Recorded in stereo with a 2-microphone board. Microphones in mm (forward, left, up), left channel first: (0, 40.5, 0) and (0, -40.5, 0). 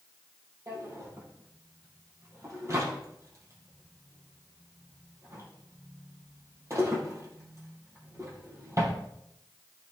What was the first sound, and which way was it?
A drawer, 40° right (ahead or behind).